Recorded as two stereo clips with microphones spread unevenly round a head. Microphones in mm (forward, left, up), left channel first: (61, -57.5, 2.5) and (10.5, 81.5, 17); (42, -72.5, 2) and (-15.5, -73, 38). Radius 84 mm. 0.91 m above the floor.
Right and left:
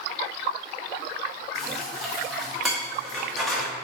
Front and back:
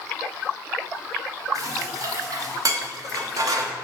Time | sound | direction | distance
1.6 | dishes clattering | 160° right | 1.0 m